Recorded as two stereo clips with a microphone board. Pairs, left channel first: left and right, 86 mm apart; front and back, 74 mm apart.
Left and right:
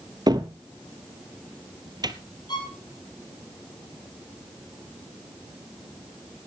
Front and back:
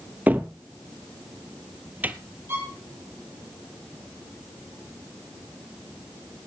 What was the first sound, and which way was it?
A cupboard door, 115° right.